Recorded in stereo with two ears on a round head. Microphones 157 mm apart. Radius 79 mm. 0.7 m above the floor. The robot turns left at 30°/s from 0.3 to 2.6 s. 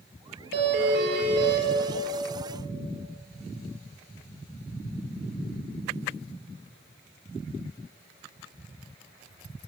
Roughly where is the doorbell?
Right.